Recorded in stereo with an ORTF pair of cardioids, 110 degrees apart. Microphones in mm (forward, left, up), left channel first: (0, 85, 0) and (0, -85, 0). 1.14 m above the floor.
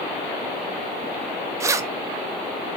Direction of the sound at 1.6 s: 20° right.